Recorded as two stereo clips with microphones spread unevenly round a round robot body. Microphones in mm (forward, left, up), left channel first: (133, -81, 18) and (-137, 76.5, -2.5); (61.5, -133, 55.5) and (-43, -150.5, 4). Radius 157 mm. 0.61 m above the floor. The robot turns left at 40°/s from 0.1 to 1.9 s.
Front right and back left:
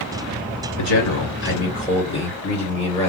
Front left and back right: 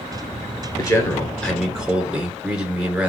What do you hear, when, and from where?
0.8 s a man speaking: 60° right, 2.5 m; by 3.1 s 105° right, 2.5 m